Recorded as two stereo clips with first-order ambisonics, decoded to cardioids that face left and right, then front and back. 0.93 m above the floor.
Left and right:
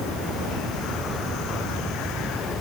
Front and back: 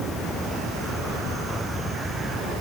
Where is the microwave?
I don't hear a microwave.